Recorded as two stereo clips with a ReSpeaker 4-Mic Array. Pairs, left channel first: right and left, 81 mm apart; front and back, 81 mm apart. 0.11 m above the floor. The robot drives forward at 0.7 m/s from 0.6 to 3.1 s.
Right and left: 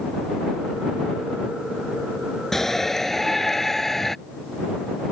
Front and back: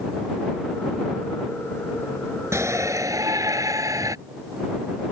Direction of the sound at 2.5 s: 175° right.